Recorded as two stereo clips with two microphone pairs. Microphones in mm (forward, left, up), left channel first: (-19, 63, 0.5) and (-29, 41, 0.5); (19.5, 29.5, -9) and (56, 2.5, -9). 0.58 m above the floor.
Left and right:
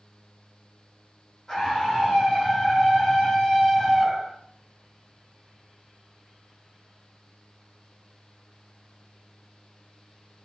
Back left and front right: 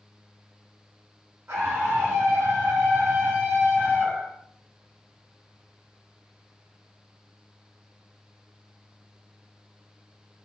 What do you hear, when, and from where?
1.5 s a scream: 15° right, 3.5 m; by 4.4 s 5° left, 4 m